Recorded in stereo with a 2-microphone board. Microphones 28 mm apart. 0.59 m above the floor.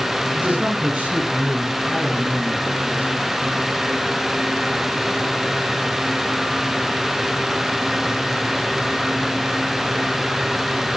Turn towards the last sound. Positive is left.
turn(degrees=-55)  # may be behind; listen again after turning